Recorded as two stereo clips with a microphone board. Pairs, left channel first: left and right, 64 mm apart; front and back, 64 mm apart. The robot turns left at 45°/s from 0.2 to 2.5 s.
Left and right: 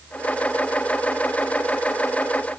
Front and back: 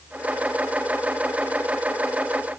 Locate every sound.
Only background noise.